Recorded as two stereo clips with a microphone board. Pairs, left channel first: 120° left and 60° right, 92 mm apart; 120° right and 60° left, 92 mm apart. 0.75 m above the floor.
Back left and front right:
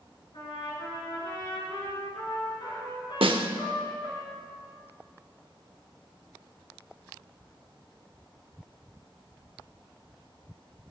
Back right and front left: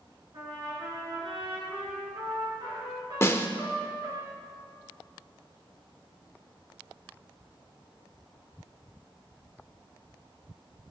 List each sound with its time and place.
0.3 s a trumpet: 95° left, 3 m
3.2 s a snare drum: 60° right, 0.6 m